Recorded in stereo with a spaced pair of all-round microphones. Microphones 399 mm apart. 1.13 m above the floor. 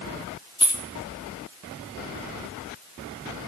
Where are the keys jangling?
10° left (ahead or behind), 0.7 m.